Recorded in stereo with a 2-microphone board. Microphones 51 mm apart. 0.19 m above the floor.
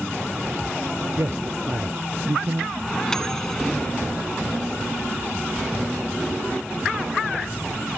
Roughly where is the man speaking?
Right.